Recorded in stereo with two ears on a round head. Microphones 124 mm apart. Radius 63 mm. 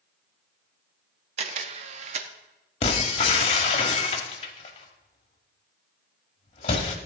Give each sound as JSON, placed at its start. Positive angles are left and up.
{"t": 1.4, "sound": "a camera shutter", "side_deg": -45, "distance_m": 0.8}
{"t": 2.8, "sound": "breaking glass", "side_deg": 45, "distance_m": 1.4}